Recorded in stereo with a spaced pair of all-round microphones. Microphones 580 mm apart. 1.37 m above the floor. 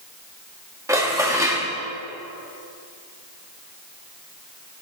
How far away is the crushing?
No crushing in this recording.